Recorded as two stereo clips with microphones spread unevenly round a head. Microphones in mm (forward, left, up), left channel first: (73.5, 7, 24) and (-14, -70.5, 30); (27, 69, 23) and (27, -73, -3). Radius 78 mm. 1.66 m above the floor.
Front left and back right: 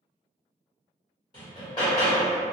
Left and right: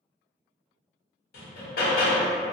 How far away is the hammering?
About 0.8 m.